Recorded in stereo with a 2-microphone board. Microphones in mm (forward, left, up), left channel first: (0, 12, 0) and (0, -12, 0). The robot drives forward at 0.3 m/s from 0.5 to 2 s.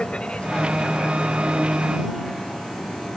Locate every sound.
0.0 s an aircraft: 45° left (ahead or behind)